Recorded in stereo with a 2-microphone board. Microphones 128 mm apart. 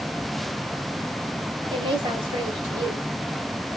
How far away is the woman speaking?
About 2.5 m.